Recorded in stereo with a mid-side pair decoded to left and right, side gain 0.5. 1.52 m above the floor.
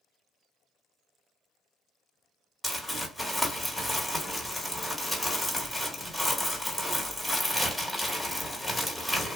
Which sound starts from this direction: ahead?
Crumpling, at 2.6 s.